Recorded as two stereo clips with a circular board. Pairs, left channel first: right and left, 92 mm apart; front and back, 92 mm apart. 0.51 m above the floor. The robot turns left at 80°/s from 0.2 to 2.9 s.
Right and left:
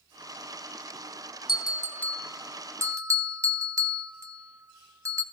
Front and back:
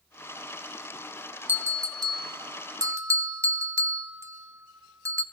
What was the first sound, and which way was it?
A bell, 115° right.